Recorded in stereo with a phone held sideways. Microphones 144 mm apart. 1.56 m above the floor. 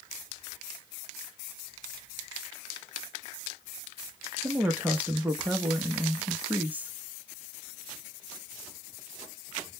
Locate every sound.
4.4 s a woman speaking: 10° right (ahead or behind), 0.5 m